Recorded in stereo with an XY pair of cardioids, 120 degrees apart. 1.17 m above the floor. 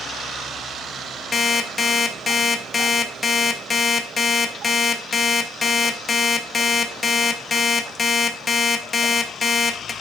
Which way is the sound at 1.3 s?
30° left.